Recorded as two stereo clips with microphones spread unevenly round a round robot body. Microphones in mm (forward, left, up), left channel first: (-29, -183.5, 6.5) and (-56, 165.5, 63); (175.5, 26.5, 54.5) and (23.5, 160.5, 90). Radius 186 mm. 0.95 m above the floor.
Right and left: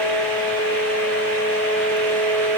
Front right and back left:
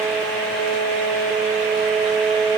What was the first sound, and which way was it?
Only background noise.